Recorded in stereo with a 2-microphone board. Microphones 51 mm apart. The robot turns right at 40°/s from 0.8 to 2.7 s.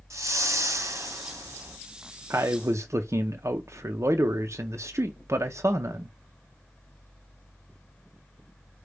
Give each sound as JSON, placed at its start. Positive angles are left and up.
{"t": 0.1, "sound": "a whoosh", "azimuth_deg": -105, "distance_m": 1.4}
{"t": 2.3, "sound": "a man speaking", "side_deg": -55, "distance_m": 0.5}